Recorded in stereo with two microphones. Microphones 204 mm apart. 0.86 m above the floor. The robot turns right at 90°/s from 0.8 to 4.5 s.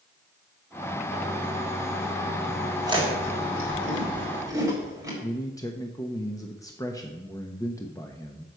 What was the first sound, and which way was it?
Chewing, 15° right (ahead or behind).